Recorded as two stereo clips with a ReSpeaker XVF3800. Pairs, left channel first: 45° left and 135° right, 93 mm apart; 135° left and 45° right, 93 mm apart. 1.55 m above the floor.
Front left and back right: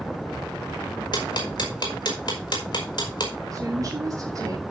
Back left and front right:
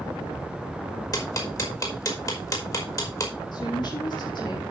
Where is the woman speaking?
175° left, 3 m.